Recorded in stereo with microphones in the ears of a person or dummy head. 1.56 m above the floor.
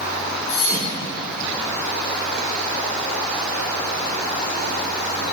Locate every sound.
0.5 s a thud: 40° left (ahead or behind), 1.6 m